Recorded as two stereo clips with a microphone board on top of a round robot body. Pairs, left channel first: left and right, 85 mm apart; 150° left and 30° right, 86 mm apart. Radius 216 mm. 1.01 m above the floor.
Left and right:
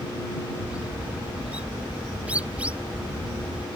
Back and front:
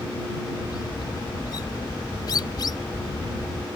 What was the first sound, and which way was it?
A bird, 165° right.